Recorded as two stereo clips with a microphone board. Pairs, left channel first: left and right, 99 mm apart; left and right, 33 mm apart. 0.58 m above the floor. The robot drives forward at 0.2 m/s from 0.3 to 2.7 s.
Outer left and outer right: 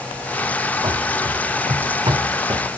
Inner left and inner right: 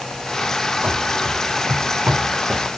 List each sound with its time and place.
0.8 s running footsteps: 45° right (ahead or behind), 1.0 m